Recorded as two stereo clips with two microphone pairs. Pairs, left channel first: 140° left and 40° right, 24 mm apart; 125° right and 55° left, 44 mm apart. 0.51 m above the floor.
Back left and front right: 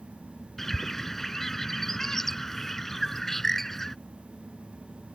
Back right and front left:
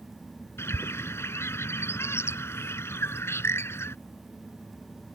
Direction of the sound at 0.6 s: 140° right.